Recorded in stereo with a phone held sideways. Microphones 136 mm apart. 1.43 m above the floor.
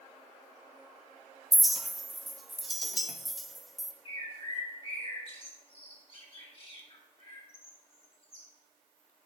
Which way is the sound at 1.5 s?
Centre (ahead or behind).